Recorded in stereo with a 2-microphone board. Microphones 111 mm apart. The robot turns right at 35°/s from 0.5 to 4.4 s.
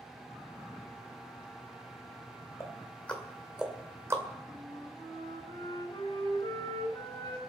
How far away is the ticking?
About 2.5 m.